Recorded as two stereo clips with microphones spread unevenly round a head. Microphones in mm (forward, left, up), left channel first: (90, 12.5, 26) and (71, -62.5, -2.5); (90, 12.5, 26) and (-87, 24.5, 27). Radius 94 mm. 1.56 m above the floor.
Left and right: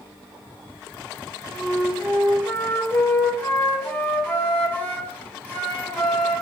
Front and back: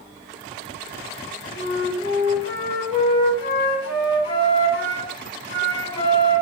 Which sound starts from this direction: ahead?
A flute, at 1.5 s.